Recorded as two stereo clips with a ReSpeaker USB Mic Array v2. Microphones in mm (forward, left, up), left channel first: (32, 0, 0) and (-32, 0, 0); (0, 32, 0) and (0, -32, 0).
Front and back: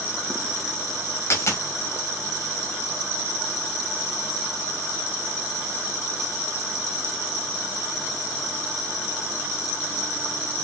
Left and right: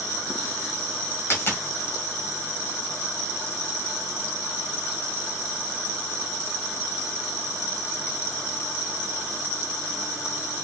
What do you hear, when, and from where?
1.3 s a dropped coin: 40° left, 1.8 m